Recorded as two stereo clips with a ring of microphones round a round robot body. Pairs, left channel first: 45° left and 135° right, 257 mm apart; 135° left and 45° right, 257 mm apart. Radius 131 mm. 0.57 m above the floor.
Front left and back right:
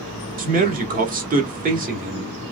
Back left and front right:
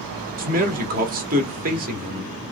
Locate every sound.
0.4 s a man speaking: 90° right, 1.3 m